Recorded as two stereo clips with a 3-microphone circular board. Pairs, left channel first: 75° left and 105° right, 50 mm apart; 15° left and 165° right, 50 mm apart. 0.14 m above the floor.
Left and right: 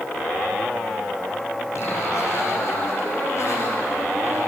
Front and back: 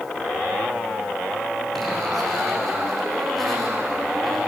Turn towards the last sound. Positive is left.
turn(degrees=100)